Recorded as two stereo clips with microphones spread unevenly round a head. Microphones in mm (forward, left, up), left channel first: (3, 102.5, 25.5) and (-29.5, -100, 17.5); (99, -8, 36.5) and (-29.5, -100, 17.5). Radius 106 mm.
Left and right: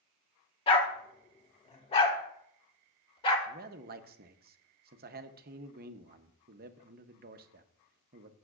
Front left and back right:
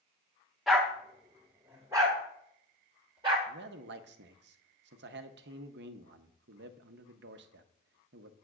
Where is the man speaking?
145° right, 0.8 m.